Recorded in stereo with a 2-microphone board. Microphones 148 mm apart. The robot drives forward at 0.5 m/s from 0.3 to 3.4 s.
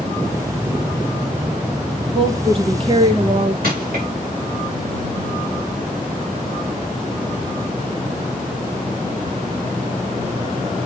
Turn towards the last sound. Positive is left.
turn(degrees=-85)